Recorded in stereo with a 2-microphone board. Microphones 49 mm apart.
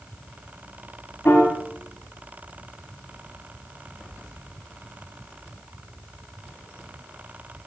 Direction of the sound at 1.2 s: 60° left (ahead or behind).